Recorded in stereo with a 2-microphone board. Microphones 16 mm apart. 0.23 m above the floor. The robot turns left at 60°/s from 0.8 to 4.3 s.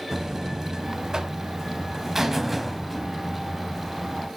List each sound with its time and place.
0.1 s a buzzer: 65° right, 1.1 m; by 4.3 s 85° left, 1.1 m